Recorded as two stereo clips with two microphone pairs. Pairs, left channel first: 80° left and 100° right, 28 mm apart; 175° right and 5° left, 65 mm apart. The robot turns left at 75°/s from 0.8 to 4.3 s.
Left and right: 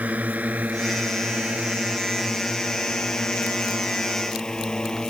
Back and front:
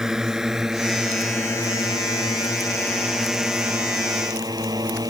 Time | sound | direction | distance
0.0 | a drone | 75° right | ?